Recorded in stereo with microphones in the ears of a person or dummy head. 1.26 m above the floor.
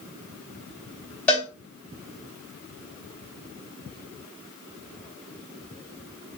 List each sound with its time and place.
1.3 s a cowbell: 5° left (ahead or behind), 3 m